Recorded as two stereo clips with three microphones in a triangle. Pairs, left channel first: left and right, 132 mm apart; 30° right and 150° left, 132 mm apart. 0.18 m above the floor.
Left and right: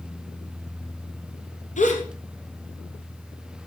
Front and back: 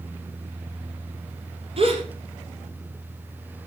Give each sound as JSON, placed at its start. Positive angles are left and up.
{"t": 1.8, "sound": "a gasp", "azimuth_deg": 110, "distance_m": 2.5}